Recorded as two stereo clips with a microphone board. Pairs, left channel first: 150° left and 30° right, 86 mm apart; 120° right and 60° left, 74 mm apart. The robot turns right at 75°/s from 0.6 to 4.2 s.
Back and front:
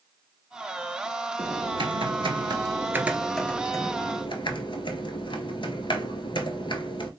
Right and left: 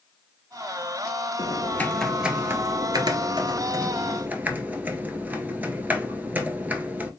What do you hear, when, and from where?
1.4 s typing on a keyboard: 85° right, 0.7 m; by 7.1 s 130° left, 0.7 m